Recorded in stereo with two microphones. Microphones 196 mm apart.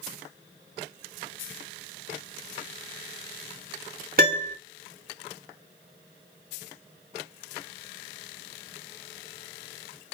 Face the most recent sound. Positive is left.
turn(degrees=-45)  # may be behind; listen again after turning